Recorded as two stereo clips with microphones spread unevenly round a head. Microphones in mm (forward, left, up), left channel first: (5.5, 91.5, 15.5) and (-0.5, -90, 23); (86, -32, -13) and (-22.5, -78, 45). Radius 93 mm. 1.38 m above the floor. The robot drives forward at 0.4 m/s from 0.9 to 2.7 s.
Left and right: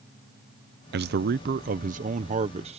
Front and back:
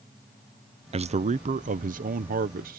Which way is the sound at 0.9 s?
105° right.